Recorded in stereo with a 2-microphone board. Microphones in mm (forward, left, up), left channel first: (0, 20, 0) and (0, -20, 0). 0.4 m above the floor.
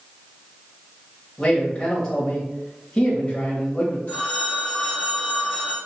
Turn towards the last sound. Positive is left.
turn(degrees=40)  # may be behind; listen again after turning